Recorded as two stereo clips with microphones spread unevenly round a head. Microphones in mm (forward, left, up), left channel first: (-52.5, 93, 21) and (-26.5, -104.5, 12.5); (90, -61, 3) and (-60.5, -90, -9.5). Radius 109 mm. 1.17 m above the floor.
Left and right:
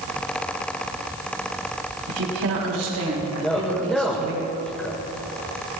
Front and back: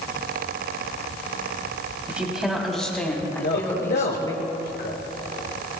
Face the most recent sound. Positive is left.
turn(degrees=10)